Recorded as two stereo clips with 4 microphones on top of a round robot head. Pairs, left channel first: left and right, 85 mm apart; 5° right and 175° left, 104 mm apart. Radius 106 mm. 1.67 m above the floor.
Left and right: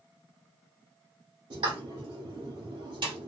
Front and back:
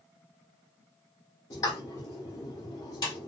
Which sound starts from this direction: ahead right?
A pop, at 1.5 s.